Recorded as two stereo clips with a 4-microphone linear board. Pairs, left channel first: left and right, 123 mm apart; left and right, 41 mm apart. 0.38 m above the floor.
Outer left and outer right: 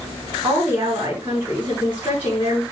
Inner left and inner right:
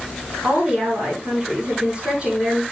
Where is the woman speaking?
20° right (ahead or behind), 4.5 m.